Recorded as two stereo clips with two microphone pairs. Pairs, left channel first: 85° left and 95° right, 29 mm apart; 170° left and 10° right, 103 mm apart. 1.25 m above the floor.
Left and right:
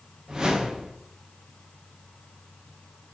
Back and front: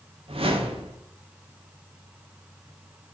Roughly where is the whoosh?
Ahead right.